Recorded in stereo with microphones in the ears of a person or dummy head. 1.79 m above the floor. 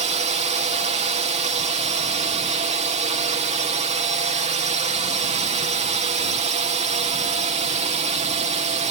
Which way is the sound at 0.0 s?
35° right (ahead or behind).